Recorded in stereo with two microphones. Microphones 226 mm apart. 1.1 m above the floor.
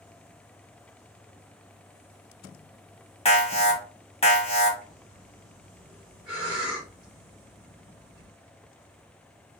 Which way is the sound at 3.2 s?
25° left (ahead or behind).